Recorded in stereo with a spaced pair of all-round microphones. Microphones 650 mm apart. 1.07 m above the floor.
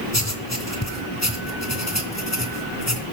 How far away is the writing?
About 3 m.